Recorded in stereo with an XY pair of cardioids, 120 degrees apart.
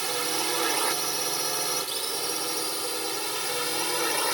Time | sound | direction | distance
0.0 | a drone | 25° right | ?